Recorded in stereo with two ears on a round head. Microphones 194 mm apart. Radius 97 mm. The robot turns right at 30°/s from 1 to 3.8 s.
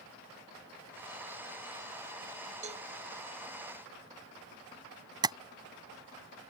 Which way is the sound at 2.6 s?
35° right (ahead or behind).